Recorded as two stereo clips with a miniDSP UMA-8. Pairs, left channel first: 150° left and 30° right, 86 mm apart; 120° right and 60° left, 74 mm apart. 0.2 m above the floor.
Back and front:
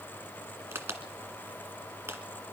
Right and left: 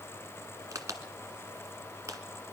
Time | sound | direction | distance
0.7 | a crack | 25° left | 1.7 m